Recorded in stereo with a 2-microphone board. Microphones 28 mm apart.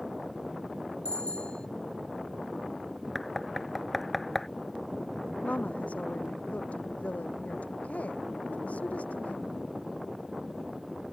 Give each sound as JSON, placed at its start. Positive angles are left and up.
{"t": 1.1, "sound": "a bicycle bell", "side_deg": 35}
{"t": 3.1, "sound": "knocking", "side_deg": 5}
{"t": 5.4, "sound": "a woman speaking", "side_deg": 60}